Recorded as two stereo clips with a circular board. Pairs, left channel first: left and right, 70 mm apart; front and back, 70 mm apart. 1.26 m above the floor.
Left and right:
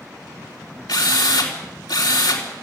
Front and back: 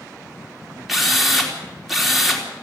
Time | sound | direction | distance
0.9 | a drill | 90° left | 3.5 m